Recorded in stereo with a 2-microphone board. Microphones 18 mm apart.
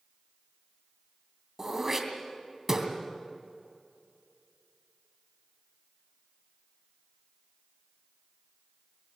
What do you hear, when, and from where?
1.6 s throat clearing: 20° right (ahead or behind), 2.5 m